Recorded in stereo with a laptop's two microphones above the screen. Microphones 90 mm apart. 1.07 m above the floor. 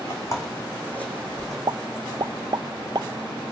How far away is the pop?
About 0.5 m.